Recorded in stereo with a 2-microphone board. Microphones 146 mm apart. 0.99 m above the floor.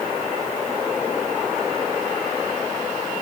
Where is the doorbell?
I don't hear a doorbell.